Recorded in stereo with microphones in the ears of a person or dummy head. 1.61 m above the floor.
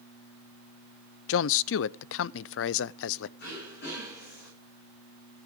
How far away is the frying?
I don't hear frying.